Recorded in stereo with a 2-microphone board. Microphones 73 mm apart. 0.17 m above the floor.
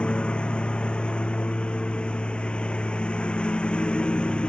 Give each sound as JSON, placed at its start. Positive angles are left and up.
{"t": 0.0, "sound": "a lawn mower", "side_deg": 15}